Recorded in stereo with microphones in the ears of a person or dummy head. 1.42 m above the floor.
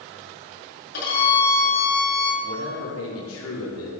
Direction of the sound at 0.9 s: 50° left (ahead or behind).